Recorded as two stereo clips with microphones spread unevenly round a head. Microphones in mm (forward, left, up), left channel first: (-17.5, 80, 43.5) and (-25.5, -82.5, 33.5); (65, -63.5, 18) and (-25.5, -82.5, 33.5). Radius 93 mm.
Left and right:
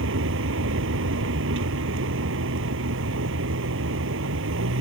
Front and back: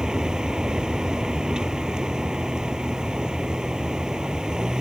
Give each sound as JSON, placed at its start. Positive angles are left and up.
{"t": 0.0, "sound": "a vehicle", "azimuth_deg": -85}